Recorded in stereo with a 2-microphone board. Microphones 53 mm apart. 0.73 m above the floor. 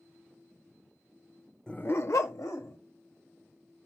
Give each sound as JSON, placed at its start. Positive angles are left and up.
{"t": 1.7, "sound": "a dog barking", "side_deg": 15, "distance_m": 0.6}